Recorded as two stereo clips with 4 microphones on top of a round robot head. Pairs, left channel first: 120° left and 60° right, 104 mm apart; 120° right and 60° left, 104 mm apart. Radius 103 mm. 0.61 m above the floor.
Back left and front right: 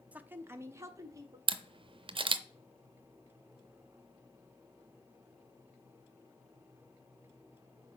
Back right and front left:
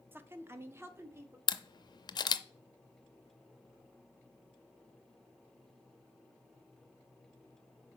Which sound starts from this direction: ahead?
A woman speaking, at 0.1 s.